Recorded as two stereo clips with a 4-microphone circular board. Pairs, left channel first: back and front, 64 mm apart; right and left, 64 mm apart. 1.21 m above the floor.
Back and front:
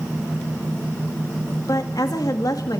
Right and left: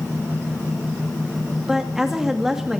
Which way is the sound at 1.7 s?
175° left.